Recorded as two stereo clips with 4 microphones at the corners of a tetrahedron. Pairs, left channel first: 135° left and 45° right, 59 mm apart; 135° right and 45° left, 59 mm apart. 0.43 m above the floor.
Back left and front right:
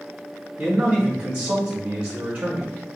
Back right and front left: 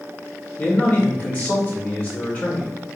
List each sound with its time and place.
0.6 s a man speaking: 95° right, 1.7 m